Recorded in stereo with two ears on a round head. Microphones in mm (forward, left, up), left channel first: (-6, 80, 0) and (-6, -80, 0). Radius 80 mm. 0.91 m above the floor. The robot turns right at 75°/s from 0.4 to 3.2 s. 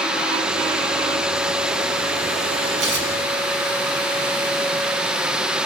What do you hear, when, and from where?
2.8 s tearing paper: 70° right (ahead or behind), 4 m; by 3.1 s 50° right (ahead or behind), 4 m